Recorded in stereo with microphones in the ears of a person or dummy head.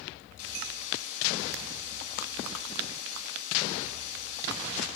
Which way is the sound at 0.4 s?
40° left (ahead or behind).